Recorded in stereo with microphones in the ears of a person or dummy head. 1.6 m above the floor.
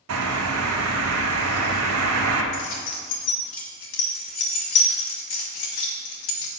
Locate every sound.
0.1 s a bird: 85° right, 0.9 m
2.5 s keys jangling: 30° left (ahead or behind), 0.7 m